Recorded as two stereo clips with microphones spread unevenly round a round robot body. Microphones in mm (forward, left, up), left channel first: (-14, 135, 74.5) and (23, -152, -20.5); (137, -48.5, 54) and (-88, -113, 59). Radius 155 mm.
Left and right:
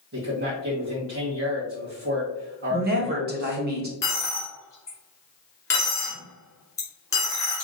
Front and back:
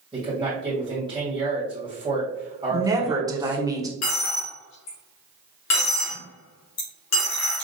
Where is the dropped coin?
15° left, 2.5 m.